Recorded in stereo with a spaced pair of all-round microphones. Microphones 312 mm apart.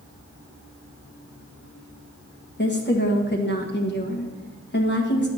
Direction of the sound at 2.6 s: 35° left (ahead or behind).